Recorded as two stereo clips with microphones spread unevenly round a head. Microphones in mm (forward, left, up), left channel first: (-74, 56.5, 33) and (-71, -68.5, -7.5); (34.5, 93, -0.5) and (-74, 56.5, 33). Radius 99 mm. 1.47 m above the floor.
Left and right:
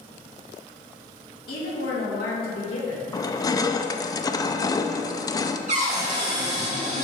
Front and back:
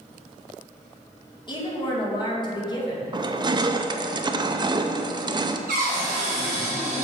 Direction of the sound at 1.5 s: 65° left.